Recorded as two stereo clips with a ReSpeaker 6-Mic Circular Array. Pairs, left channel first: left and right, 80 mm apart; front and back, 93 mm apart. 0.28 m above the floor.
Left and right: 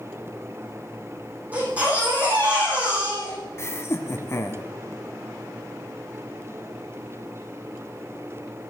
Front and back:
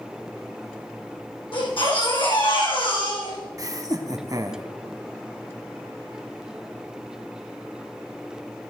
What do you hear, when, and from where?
1.5 s a baby crying: 20° right, 9.5 m
3.6 s laughter: 140° left, 1.8 m